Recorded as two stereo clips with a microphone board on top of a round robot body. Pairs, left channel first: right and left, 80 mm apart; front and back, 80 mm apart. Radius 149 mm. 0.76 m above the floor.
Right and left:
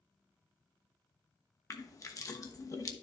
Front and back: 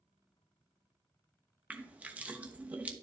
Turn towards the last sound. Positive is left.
turn(degrees=-115)